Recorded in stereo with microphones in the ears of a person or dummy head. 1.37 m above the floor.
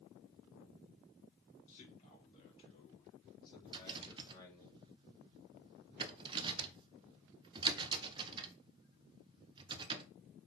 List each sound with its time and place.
1.7 s a man speaking: 35° left (ahead or behind), 4.5 m; by 4.7 s 15° left (ahead or behind), 3 m
3.7 s a rattle: 25° right (ahead or behind), 0.9 m